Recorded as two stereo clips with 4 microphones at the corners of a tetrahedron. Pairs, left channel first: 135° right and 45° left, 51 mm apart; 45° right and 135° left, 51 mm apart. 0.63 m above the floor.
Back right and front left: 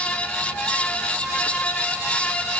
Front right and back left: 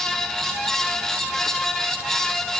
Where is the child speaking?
I don't hear a child speaking.